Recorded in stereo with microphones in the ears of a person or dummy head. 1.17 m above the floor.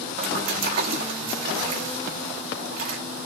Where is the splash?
50° right (ahead or behind), 1.3 m.